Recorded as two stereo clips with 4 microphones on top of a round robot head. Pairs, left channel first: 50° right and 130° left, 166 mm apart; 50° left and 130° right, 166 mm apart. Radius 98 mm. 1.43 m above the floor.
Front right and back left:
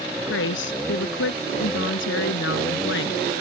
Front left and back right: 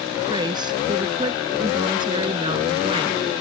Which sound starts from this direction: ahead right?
A woman speaking, at 0.3 s.